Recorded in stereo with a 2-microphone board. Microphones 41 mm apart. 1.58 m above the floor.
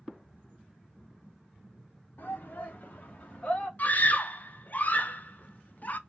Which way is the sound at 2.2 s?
50° left (ahead or behind).